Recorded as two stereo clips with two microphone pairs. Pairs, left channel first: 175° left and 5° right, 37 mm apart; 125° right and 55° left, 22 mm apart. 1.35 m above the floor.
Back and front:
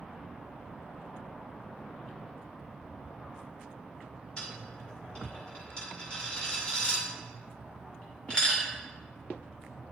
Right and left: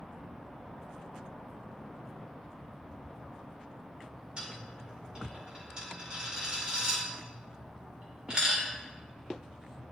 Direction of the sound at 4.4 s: 115° left.